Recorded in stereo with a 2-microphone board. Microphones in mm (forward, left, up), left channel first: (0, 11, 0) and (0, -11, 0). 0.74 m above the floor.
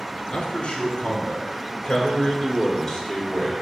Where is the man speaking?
55° left (ahead or behind), 2 m; by 3.6 s 5° left (ahead or behind), 2 m.